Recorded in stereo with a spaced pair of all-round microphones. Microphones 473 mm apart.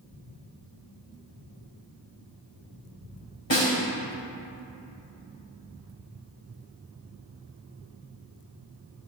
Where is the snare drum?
70° left (ahead or behind), 2.5 m.